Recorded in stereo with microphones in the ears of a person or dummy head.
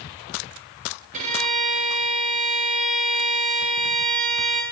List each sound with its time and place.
1.1 s a violin: 40° right (ahead or behind), 2 m